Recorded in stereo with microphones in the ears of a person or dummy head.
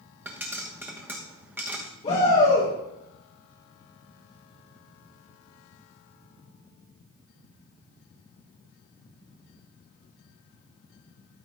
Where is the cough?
I don't hear a cough.